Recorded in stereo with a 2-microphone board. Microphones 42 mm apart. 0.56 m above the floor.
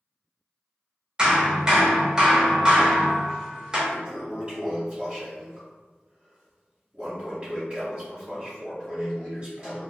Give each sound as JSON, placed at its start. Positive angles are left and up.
{"t": 1.2, "sound": "hammering", "side_deg": -20, "distance_m": 0.7}
{"t": 3.9, "sound": "a toilet flushing", "side_deg": -25, "distance_m": 1.4}